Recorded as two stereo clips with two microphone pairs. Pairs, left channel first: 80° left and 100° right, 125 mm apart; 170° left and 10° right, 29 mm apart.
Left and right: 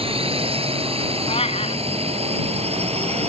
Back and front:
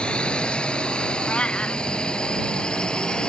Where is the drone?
140° right; by 3.3 s 130° right.